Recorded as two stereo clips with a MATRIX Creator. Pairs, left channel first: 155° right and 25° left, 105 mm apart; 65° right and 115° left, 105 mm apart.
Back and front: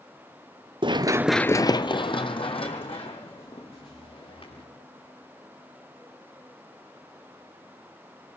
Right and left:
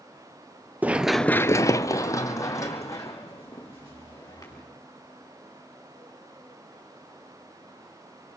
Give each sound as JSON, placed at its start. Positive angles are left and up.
{"t": 0.8, "sound": "running footsteps", "azimuth_deg": 40, "distance_m": 0.9}